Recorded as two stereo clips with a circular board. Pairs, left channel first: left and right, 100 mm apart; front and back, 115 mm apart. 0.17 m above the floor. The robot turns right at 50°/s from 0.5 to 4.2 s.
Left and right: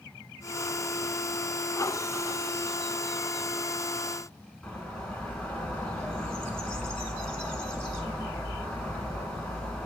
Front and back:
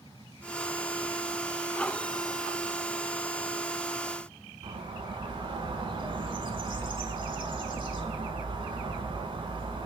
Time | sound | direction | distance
4.6 | a bird | 165° left | 0.7 m